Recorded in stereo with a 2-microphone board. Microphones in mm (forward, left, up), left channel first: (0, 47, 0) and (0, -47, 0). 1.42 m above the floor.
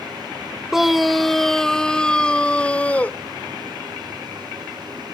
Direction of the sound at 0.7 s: 5° right (ahead or behind).